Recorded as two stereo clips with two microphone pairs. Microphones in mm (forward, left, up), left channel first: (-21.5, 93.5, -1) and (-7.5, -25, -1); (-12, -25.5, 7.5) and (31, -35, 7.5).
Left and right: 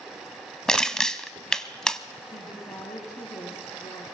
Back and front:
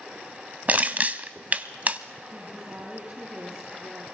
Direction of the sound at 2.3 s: 40° left.